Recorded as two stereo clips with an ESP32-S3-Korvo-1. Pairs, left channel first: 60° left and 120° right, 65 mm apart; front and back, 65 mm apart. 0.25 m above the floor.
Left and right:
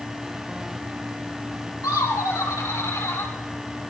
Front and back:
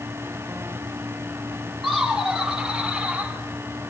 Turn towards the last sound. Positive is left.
turn(degrees=110)